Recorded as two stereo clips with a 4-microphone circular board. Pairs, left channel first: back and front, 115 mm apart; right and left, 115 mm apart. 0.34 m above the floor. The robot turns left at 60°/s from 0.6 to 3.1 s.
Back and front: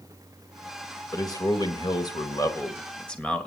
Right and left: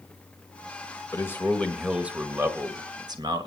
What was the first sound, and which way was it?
A man speaking, 140° right.